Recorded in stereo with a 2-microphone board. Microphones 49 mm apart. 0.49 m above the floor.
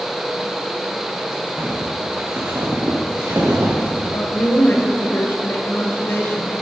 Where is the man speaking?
55° left (ahead or behind), 2 m.